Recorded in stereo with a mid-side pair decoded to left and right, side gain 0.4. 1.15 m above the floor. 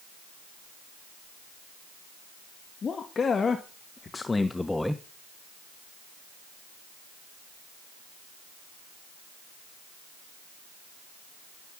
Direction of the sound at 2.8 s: 50° left.